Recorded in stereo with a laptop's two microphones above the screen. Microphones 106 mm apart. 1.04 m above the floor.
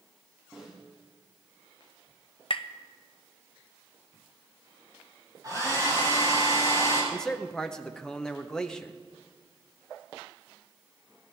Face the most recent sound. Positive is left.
turn(degrees=5)  # may be behind; listen again after turning